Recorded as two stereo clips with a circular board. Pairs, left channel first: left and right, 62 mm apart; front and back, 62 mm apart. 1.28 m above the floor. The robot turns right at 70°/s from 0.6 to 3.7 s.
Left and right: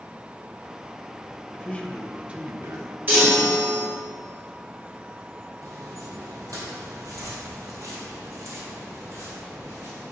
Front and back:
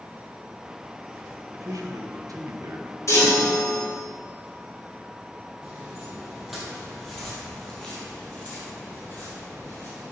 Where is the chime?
35° right, 2.5 m; by 3.8 s 10° left, 2.5 m.